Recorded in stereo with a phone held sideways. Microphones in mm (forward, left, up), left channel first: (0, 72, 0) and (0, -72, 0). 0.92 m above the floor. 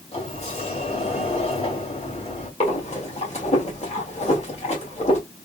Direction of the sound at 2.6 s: 50° left (ahead or behind).